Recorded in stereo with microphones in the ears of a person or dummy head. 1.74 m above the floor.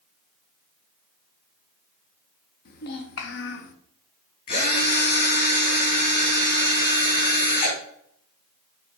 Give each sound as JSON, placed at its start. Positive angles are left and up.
{"t": 2.6, "sound": "a child speaking", "side_deg": 60, "distance_m": 1.2}
{"t": 4.5, "sound": "a drill", "side_deg": 40, "distance_m": 3.0}